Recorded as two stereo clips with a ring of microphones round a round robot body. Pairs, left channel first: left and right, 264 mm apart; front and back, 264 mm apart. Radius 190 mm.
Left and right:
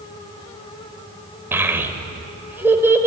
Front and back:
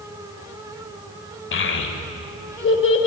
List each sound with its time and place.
1.5 s a child speaking: 10° right, 1.2 m